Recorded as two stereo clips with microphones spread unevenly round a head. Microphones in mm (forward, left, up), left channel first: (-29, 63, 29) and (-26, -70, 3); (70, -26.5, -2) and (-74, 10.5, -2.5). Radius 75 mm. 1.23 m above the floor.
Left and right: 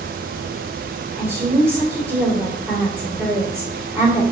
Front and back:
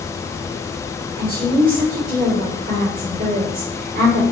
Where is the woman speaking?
165° right, 2 m.